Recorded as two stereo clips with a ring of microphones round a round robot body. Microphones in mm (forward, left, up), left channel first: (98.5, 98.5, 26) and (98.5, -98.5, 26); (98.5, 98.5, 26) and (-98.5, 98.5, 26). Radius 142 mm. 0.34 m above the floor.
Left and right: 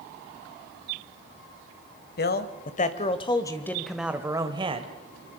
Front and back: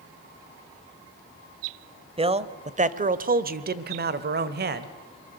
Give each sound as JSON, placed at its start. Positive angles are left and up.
{"t": 2.2, "sound": "a man speaking", "azimuth_deg": 120, "distance_m": 1.4}